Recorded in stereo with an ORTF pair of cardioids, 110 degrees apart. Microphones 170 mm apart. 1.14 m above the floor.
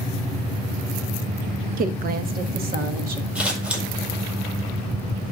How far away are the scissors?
About 5.5 m.